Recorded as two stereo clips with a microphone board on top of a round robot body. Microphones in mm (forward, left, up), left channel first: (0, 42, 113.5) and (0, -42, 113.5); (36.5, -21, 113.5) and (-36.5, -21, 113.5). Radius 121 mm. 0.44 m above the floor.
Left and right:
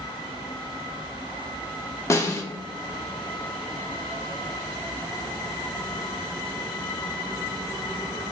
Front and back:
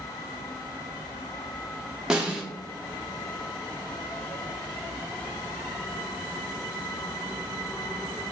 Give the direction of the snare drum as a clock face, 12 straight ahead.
8 o'clock.